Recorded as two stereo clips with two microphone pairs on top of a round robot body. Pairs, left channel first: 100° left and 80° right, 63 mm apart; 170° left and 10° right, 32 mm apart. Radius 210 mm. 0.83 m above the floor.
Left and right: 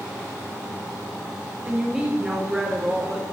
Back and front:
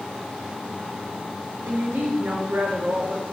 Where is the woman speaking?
Straight ahead, 3.5 m.